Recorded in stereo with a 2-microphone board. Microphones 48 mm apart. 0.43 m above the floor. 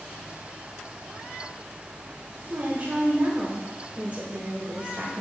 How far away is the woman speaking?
About 1.5 m.